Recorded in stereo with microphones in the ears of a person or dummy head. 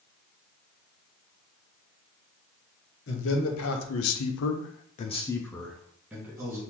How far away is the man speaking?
About 1.1 m.